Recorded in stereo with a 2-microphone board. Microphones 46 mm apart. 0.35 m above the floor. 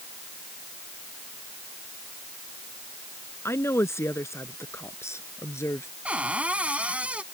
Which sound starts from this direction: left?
A woman speaking, at 3.5 s.